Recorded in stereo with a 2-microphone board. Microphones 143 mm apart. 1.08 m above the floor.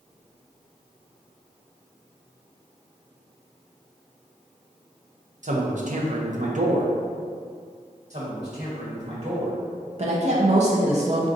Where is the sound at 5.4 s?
60° right (ahead or behind), 0.7 m.